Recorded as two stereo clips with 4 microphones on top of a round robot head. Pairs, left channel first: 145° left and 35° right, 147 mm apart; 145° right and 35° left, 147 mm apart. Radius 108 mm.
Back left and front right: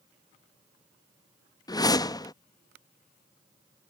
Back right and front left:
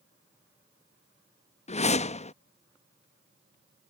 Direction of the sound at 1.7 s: 160° right.